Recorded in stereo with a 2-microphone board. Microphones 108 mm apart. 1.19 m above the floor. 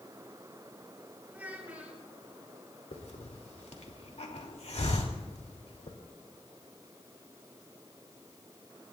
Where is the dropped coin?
No dropped coin in this recording.